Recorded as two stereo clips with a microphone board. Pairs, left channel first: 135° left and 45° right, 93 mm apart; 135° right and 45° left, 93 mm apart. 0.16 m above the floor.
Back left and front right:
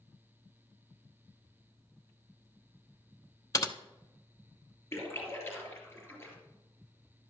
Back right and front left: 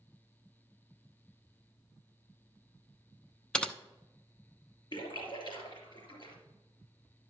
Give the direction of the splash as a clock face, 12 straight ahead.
6 o'clock.